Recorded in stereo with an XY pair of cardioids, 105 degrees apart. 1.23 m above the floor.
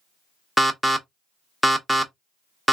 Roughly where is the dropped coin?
I don't hear a dropped coin.